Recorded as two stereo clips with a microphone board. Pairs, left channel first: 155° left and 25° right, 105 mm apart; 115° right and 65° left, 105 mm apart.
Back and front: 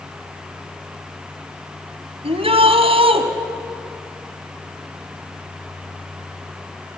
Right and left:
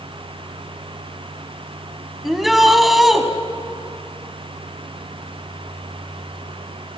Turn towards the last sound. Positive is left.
turn(degrees=-20)